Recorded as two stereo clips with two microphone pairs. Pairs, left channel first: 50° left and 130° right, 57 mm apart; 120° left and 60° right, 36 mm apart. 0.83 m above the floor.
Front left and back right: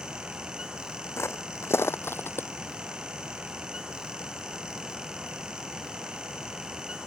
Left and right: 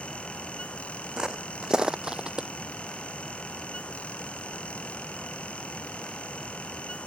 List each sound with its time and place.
1.2 s footsteps: 10° left; by 2.5 s 5° left